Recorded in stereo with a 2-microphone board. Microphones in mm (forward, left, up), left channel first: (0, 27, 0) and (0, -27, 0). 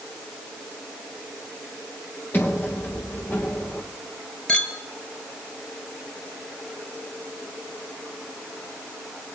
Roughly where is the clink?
Centre.